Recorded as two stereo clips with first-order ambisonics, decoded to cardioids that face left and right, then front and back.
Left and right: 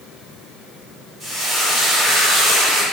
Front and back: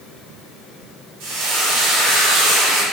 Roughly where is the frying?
Behind.